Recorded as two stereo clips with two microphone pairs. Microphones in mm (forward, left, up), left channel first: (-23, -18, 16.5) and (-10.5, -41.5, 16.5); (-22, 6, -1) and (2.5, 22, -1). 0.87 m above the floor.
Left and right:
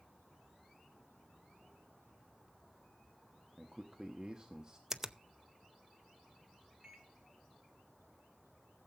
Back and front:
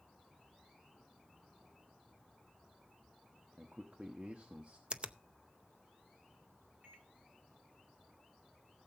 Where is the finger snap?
5° left, 0.6 m.